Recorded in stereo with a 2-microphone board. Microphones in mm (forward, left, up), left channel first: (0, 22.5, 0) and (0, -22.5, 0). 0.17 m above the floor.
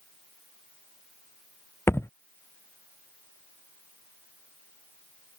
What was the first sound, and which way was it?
A thud, 75° left (ahead or behind).